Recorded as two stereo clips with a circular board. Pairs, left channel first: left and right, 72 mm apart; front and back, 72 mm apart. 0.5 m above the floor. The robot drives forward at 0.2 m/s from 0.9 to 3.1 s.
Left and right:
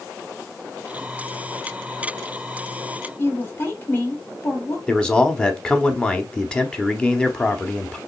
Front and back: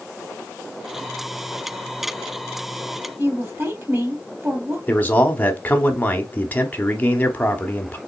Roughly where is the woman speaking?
Behind left.